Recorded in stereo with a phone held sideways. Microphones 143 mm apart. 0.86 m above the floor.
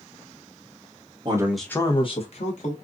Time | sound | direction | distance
1.2 | a man speaking | 35° right (ahead or behind) | 0.7 m